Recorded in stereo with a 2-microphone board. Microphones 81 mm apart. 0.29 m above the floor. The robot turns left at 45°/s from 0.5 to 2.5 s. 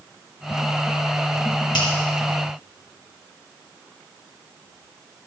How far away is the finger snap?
About 3 m.